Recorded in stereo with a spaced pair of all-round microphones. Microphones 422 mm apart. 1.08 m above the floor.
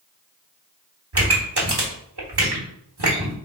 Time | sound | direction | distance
1.1 | a pop | 65° right (ahead or behind) | 1.2 m